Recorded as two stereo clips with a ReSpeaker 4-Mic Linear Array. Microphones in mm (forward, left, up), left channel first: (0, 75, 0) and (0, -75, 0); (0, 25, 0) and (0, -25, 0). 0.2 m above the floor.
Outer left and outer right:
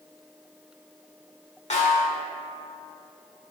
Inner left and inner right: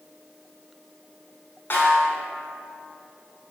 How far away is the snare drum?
About 1.0 m.